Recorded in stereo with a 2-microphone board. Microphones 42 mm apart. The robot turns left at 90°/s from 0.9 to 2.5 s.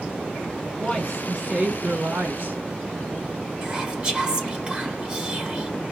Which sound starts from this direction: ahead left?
A woman speaking, at 0.8 s.